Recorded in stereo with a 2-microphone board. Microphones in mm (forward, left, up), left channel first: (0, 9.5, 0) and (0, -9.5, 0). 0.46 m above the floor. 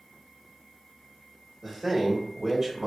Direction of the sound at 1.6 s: 30° right (ahead or behind).